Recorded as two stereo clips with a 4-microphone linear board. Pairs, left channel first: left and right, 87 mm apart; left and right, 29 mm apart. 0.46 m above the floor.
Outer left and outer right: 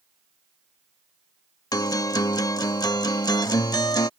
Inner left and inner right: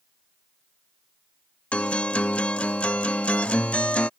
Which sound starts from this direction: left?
A guitar, at 1.7 s.